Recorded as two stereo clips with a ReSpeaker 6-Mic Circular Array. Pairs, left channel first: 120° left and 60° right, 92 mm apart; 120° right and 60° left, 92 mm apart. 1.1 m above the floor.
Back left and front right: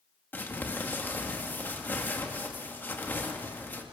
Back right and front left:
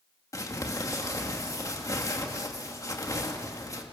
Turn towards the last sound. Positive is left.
turn(degrees=-170)